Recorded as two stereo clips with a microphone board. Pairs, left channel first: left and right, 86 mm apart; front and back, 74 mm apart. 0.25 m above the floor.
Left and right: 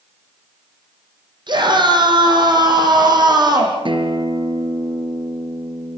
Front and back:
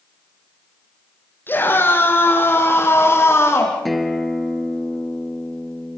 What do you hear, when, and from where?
1.5 s a scream: 60° right, 7.5 m; by 3.8 s 55° right, 9 m
3.9 s a guitar: 90° right, 3 m